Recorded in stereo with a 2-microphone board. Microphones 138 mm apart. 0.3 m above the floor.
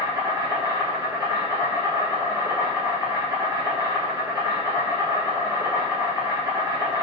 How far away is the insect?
About 1.4 m.